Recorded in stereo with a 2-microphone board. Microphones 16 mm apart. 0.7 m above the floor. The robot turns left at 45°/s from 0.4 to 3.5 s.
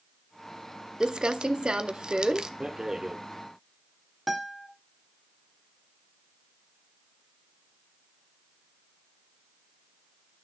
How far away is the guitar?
About 1.6 m.